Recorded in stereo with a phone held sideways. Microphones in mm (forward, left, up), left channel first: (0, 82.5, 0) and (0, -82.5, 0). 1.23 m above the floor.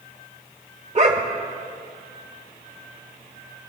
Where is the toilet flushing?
No toilet flushing in this recording.